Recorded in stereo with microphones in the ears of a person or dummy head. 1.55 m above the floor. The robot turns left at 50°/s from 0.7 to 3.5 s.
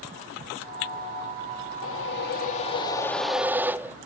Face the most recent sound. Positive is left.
turn(degrees=-10)